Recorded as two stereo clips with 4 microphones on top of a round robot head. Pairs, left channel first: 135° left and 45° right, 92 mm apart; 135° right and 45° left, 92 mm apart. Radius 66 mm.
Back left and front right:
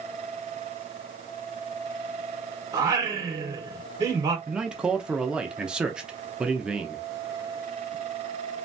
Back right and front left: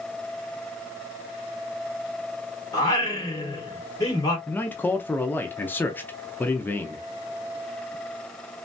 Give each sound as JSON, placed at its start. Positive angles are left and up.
{"t": 2.7, "sound": "singing", "azimuth_deg": -95, "distance_m": 1.6}
{"t": 4.5, "sound": "a man speaking", "azimuth_deg": -110, "distance_m": 0.7}